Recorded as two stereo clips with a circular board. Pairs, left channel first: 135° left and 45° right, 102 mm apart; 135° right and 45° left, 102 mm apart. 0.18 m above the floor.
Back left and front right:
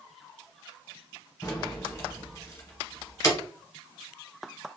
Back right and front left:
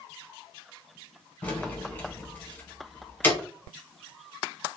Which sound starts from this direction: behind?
Keys jangling, at 1.4 s.